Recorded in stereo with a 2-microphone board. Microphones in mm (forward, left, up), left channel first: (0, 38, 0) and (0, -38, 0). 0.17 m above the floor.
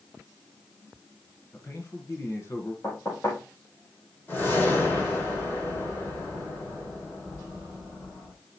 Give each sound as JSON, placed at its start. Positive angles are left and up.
{"t": 1.5, "sound": "a man speaking", "side_deg": 40, "distance_m": 1.9}
{"t": 2.8, "sound": "knocking", "side_deg": 35, "distance_m": 6.0}
{"t": 4.3, "sound": "a whoosh", "side_deg": 25, "distance_m": 6.5}